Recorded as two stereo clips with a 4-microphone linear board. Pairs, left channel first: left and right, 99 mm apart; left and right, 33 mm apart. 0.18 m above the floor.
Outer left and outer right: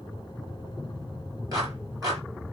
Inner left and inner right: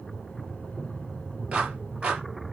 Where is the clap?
35° right (ahead or behind), 3.5 m.